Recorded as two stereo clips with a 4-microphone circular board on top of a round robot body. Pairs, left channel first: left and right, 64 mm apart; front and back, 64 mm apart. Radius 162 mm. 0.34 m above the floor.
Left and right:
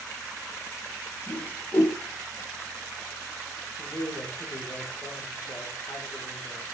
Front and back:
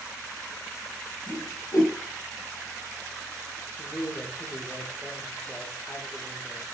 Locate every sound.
1.3 s a whoosh: 25° left, 3.5 m
3.8 s a man speaking: 80° left, 2.5 m